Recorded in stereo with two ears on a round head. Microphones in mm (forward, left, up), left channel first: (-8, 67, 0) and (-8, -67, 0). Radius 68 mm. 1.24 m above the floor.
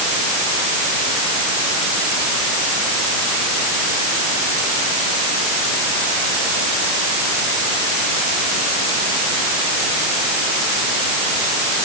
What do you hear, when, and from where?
Only background noise.